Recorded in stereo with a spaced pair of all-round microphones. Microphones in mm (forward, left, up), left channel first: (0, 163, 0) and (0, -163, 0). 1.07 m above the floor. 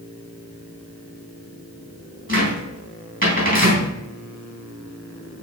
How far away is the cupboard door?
About 3.5 m.